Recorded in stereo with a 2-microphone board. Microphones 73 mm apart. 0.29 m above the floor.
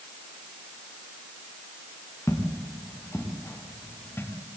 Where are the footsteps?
40° left (ahead or behind), 5.5 m; by 4.3 s 30° left (ahead or behind), 6 m.